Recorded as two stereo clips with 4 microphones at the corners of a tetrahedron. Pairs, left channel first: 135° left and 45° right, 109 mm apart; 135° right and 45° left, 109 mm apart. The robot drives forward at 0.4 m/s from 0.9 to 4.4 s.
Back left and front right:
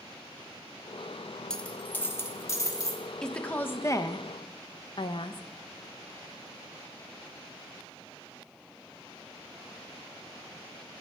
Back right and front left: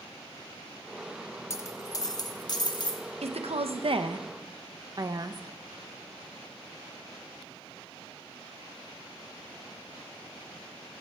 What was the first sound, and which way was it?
A dropped coin, 150° right.